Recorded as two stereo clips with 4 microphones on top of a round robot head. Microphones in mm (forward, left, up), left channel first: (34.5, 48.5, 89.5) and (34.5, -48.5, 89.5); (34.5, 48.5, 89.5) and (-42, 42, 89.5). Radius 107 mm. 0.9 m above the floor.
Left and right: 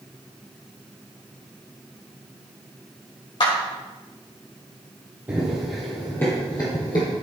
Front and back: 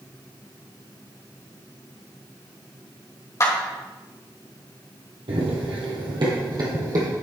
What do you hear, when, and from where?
3.4 s a clap: 55° left, 3 m
5.3 s running footsteps: 165° right, 1.7 m; by 7.1 s 140° left, 2.5 m